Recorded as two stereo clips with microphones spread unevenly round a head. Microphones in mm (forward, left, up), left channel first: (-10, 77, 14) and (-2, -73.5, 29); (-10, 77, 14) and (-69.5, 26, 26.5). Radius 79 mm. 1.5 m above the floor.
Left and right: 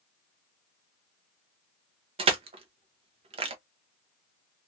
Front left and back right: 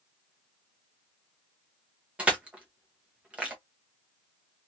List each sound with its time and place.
2.2 s crushing: 80° right, 0.6 m